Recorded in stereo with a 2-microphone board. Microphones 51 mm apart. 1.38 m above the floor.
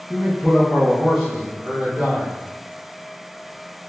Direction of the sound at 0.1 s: 30° left (ahead or behind).